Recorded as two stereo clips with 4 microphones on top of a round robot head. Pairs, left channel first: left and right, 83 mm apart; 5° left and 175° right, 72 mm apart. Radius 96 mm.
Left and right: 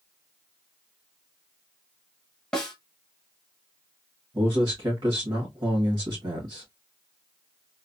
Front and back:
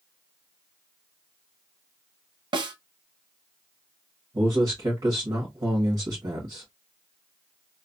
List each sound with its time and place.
2.5 s a snare drum: 170° left, 0.7 m
4.3 s a man speaking: 145° right, 1.5 m